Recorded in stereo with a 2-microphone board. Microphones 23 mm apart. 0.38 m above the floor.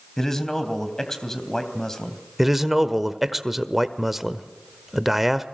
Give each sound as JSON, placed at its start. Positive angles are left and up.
{"t": 0.2, "sound": "a man speaking", "side_deg": 20, "distance_m": 3.0}
{"t": 2.4, "sound": "a man speaking", "side_deg": -10, "distance_m": 1.2}